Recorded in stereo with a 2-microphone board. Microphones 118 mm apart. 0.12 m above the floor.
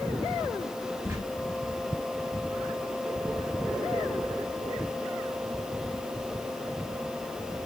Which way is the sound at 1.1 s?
20° right (ahead or behind).